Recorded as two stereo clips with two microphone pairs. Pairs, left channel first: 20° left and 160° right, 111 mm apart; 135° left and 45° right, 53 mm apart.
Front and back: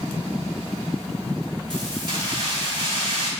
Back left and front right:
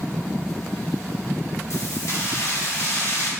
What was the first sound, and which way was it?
Keys jangling, 155° left.